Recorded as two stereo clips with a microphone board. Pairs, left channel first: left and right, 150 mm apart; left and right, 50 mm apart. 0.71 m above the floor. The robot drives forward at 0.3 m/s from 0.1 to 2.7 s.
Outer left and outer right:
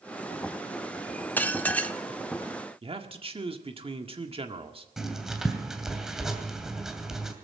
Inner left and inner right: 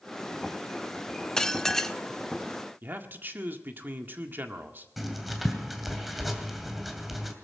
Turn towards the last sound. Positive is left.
turn(degrees=-5)  # may be behind; listen again after turning